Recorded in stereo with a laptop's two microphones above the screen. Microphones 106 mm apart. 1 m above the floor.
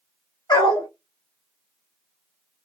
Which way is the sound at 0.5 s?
40° left (ahead or behind).